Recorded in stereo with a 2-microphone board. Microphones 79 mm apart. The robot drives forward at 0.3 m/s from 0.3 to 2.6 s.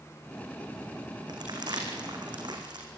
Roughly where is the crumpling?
Right.